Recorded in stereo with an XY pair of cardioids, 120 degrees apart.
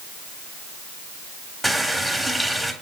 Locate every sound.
1.6 s a running tap: 5° right, 3.5 m